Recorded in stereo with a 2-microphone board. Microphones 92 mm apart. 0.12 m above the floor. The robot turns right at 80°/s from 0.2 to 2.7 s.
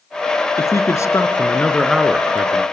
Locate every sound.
0.6 s a man speaking: 70° left, 1.3 m; by 2.6 s 125° right, 1.3 m